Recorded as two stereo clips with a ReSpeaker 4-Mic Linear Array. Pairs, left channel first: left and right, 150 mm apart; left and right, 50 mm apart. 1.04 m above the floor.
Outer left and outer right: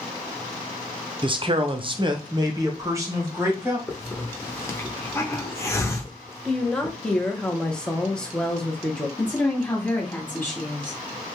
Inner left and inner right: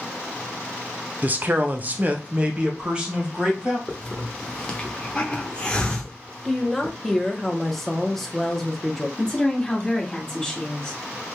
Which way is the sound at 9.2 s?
20° left (ahead or behind).